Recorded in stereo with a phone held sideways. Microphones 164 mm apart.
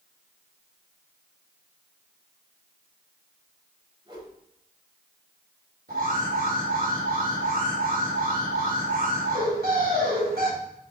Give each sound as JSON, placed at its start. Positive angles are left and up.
{"t": 4.0, "sound": "a whoosh", "side_deg": -35, "distance_m": 4.5}
{"t": 5.9, "sound": "an alarm", "side_deg": -75, "distance_m": 4.5}